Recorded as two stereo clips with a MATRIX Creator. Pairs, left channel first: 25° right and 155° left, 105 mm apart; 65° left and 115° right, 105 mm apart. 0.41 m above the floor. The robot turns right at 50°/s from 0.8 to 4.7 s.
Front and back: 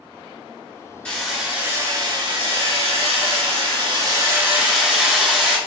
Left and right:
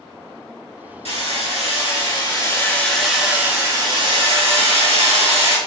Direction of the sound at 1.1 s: 55° left.